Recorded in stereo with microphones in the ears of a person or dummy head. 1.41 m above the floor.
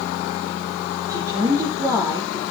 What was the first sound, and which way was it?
A woman speaking, 10° right (ahead or behind).